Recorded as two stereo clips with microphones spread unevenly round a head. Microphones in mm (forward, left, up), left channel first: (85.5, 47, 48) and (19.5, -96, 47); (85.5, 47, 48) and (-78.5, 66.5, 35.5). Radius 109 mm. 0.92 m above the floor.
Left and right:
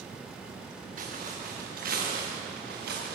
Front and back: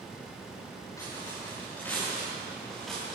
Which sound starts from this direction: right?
Footsteps, at 1.0 s.